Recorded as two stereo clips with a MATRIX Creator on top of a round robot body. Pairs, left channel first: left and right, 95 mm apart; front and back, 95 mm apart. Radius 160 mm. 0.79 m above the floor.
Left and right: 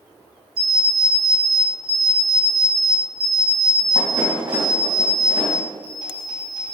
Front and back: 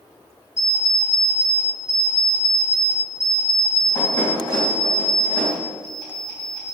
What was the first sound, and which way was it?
An alarm clock, 55° right.